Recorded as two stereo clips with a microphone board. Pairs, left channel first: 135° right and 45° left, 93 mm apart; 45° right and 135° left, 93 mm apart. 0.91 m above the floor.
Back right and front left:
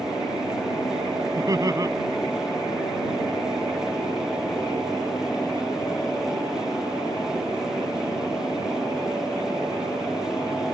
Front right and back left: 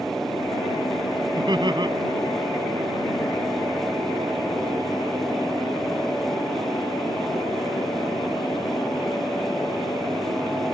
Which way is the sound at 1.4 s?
95° left.